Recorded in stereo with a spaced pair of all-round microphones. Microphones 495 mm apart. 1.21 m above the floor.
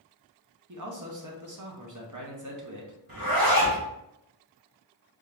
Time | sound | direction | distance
0.7 | a man speaking | 35° right (ahead or behind) | 0.9 m
3.1 | a zipper | 45° right (ahead or behind) | 1.0 m